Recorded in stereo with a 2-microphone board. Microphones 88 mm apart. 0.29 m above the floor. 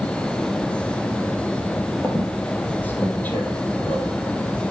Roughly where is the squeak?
Centre.